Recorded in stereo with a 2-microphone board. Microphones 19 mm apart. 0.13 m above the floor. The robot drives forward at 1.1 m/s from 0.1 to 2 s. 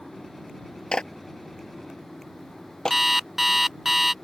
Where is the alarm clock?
15° right (ahead or behind).